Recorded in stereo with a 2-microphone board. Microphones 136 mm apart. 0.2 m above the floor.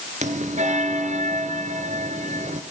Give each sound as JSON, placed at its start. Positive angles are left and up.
{"t": 0.2, "sound": "a bell", "side_deg": -65, "distance_m": 1.7}